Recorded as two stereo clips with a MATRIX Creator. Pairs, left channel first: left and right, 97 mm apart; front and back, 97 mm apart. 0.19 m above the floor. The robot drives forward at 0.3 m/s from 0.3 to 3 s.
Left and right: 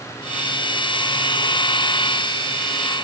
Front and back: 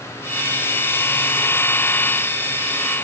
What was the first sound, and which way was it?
Only background noise.